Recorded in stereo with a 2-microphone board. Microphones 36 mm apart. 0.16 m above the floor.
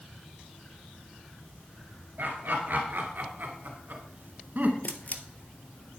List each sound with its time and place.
2.2 s laughter: 60° right (ahead or behind), 2.5 m; by 4.7 s 50° right (ahead or behind), 1.6 m
4.8 s a camera shutter: 45° left (ahead or behind), 1.1 m